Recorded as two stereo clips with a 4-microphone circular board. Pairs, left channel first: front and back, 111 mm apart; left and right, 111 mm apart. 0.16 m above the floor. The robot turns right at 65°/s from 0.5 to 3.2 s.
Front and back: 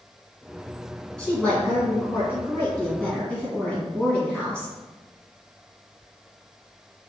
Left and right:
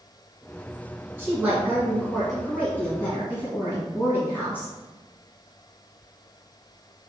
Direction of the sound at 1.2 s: 70° right.